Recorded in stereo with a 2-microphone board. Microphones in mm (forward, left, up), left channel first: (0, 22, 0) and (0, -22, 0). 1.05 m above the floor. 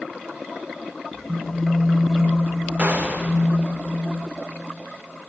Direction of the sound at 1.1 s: 5° left (ahead or behind).